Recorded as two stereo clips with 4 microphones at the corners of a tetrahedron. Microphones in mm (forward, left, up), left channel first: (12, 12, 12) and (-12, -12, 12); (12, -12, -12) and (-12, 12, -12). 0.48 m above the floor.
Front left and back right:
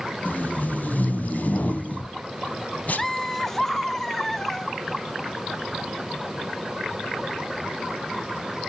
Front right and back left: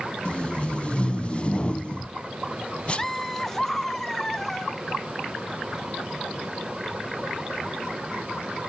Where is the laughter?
Straight ahead, 0.7 m.